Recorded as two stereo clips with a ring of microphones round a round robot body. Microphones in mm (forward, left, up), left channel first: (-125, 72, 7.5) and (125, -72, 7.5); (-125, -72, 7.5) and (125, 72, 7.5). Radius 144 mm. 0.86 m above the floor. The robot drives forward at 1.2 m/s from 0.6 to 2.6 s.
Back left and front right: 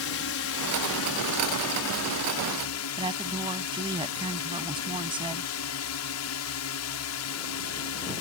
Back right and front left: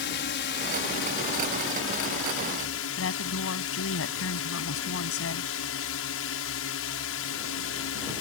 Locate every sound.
0.0 s a drone: 170° left; by 8.2 s 175° left
3.0 s a woman speaking: 105° right